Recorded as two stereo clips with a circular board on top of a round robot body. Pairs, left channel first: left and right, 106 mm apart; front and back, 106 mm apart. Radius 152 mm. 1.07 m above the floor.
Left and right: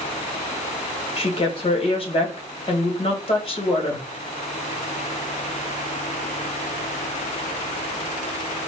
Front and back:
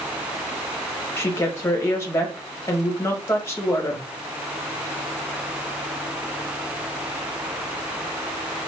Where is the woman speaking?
65° left, 1.4 m.